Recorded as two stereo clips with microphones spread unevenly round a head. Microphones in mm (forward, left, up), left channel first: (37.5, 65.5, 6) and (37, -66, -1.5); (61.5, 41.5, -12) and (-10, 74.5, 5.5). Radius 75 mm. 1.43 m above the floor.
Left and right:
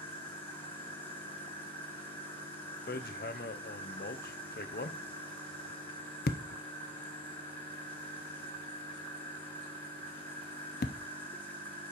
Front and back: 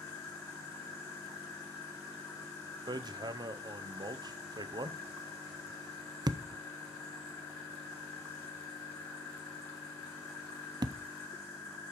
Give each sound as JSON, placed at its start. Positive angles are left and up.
{"t": 0.0, "sound": "an insect", "azimuth_deg": 15, "distance_m": 4.0}
{"t": 2.9, "sound": "hammering", "azimuth_deg": 120, "distance_m": 0.5}